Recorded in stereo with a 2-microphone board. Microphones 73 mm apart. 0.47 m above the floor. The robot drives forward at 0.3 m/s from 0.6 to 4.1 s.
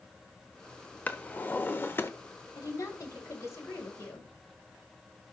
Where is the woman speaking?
50° left (ahead or behind), 2.5 m; by 4.3 s 45° left (ahead or behind), 2.5 m.